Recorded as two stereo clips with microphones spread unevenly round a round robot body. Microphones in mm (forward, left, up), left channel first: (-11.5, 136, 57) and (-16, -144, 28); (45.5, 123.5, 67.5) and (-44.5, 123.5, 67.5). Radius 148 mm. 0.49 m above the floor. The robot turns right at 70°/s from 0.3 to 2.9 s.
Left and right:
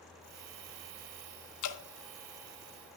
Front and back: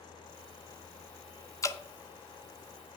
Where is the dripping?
55° left, 1.1 m; by 1.8 s 70° left, 1.1 m.